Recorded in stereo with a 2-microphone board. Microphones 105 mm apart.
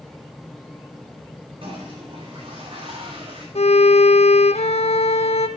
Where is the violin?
80° left, 0.9 m.